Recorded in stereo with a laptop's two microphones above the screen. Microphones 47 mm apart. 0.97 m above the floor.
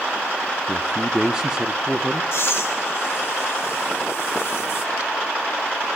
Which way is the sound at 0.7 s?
15° right (ahead or behind).